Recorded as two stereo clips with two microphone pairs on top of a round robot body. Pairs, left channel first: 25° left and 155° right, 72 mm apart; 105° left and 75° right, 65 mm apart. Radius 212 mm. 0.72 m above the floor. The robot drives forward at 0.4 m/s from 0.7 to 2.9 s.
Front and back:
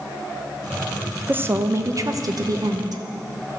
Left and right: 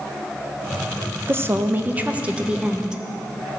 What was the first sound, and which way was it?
A woman speaking, 105° right.